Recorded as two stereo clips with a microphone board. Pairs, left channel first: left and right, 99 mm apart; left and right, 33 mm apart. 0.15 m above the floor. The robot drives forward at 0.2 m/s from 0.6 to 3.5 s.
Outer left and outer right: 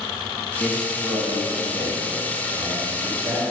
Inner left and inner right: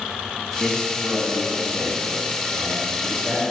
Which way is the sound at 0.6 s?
20° right (ahead or behind).